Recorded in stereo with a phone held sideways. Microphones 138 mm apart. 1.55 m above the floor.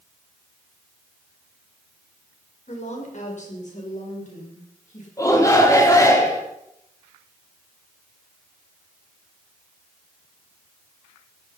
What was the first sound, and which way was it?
A woman speaking, 55° left (ahead or behind).